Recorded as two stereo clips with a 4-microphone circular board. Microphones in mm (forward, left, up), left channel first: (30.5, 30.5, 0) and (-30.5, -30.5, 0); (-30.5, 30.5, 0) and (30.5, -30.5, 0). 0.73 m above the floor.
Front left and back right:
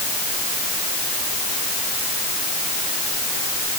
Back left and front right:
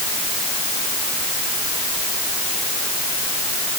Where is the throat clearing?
I don't hear throat clearing.